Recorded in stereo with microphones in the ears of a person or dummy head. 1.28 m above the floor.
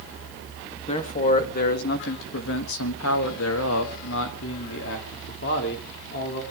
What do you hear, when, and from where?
0.9 s a man speaking: 35° left (ahead or behind), 2.0 m; by 6.4 s 55° left (ahead or behind), 3.5 m